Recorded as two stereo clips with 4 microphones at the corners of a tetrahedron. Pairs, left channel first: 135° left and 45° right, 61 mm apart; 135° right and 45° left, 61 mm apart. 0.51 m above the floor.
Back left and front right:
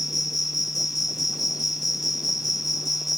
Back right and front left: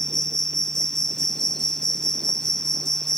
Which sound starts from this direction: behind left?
An insect, at 0.0 s.